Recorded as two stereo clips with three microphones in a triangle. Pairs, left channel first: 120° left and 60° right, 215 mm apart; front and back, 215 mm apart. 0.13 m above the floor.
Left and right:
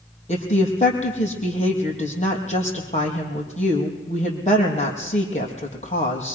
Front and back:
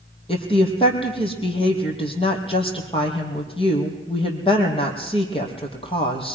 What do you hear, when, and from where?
0.3 s a woman speaking: 65° left, 4 m